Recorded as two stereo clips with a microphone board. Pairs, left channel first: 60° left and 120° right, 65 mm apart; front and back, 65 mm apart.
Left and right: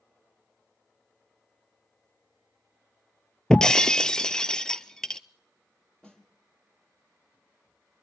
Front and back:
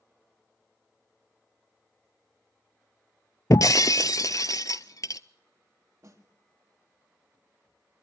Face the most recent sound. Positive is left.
turn(degrees=135)